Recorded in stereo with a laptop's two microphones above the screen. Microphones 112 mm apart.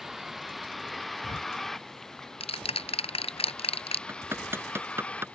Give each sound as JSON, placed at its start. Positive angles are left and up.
{"t": 0.0, "sound": "a vehicle", "side_deg": 0}
{"t": 1.2, "sound": "ticking", "side_deg": 60}
{"t": 4.1, "sound": "hammering", "side_deg": -20}